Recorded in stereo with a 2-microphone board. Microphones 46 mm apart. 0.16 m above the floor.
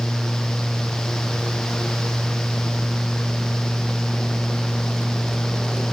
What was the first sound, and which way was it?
Only background noise.